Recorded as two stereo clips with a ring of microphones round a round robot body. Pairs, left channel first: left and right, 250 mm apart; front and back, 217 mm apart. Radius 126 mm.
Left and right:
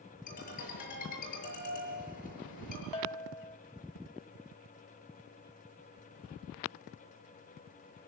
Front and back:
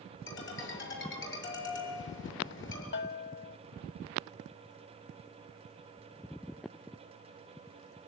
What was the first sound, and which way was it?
A ringtone, 30° left.